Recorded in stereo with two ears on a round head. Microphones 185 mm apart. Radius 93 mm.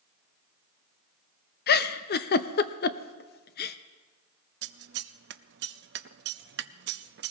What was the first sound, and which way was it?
A giggle, 50° left (ahead or behind).